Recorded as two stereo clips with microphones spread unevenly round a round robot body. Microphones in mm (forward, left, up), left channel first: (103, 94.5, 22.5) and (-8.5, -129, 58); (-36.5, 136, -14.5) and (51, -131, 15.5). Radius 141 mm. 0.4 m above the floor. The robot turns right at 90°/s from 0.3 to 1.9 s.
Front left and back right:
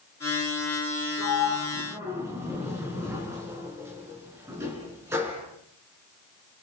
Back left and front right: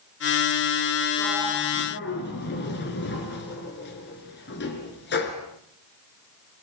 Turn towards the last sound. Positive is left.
turn(degrees=165)